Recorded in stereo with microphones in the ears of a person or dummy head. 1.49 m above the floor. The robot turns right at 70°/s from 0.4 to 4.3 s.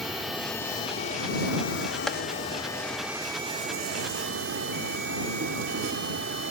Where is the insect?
5° right; by 6.5 s 90° right.